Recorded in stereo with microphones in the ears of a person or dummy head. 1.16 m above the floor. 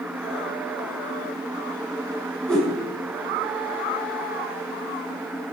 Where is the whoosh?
Centre (ahead or behind), 4.5 m.